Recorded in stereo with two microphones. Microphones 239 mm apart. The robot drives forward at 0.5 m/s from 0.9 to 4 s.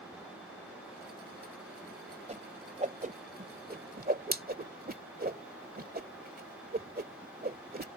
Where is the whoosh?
30° right (ahead or behind); by 7.9 s 40° right (ahead or behind).